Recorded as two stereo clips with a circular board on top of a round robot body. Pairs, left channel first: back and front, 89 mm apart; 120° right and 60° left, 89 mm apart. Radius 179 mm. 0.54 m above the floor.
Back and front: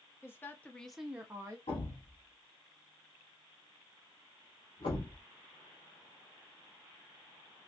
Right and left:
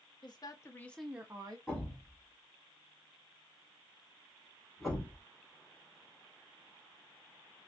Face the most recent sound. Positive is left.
turn(degrees=150)